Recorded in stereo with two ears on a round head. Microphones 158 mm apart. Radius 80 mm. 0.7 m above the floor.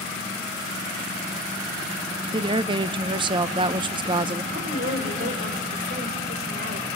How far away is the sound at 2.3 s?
About 0.5 m.